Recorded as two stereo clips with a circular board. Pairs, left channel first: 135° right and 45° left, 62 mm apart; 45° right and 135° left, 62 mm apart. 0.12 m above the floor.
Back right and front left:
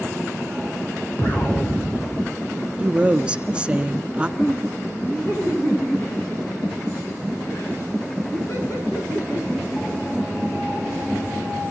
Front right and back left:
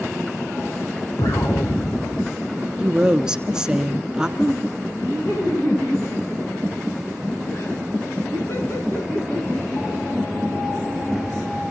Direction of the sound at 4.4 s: 90° right.